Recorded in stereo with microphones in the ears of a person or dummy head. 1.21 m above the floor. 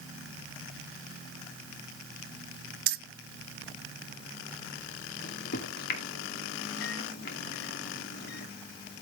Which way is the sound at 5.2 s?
65° left (ahead or behind).